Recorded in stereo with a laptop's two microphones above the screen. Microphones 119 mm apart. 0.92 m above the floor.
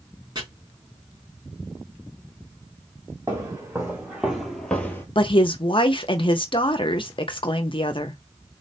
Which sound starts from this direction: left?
A woman speaking, at 5.2 s.